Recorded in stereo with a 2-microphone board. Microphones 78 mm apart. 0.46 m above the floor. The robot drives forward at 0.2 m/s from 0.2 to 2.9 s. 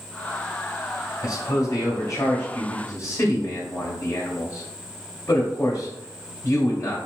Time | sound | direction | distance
1.2 | a man speaking | 40° left (ahead or behind) | 1.5 m